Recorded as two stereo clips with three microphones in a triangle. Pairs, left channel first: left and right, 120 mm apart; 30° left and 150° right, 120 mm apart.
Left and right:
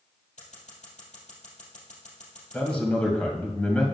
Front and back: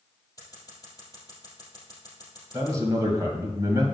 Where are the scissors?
90° left, 3 m.